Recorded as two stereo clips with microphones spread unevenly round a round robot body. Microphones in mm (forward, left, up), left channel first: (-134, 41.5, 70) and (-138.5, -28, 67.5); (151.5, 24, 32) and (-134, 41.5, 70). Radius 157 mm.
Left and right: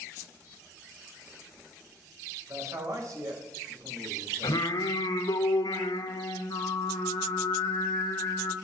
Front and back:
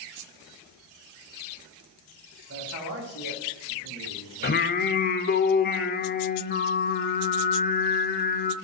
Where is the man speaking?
130° right, 4 m.